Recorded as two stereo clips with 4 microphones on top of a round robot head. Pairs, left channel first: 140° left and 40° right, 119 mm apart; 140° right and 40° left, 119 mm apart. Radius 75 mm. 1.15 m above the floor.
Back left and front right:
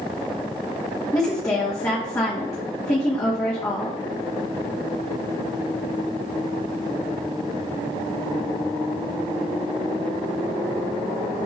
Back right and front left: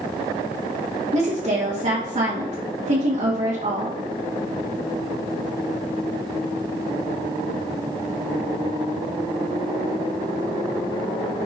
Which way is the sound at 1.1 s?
75° left.